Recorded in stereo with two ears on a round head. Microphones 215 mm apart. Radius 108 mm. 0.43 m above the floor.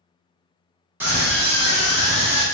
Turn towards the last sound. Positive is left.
turn(degrees=5)  # may be behind; listen again after turning